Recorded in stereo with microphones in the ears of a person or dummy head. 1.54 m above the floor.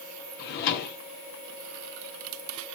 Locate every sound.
0.4 s a drawer: 50° left (ahead or behind), 1.3 m